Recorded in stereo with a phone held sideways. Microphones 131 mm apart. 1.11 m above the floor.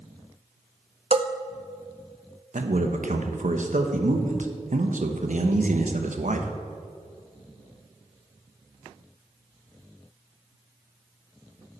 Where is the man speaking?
70° right (ahead or behind), 1.1 m.